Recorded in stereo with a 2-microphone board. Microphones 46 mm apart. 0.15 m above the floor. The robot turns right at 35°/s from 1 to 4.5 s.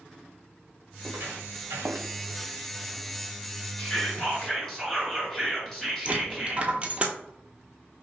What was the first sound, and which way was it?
Footsteps, 75° right (ahead or behind).